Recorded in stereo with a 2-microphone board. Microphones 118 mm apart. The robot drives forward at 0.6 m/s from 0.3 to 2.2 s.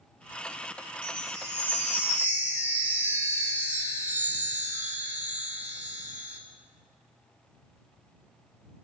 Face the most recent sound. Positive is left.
turn(degrees=-15)  # may be behind; listen again after turning